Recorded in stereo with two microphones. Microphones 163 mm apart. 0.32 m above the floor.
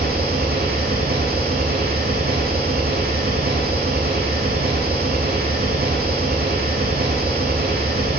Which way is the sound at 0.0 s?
70° right (ahead or behind).